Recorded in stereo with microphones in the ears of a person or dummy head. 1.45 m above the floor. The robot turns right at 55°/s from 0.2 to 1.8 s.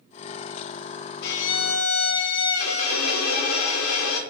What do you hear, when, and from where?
1.2 s a violin: 60° left, 0.5 m; by 4.2 s 90° left, 0.5 m